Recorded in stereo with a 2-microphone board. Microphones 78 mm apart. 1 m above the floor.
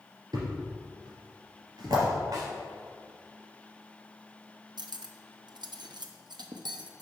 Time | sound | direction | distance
0.3 | a thud | 65° right (ahead or behind) | 2.5 m
2.3 | a snare drum | 60° right (ahead or behind) | 3 m
4.8 | cutlery clinking | 85° right | 0.6 m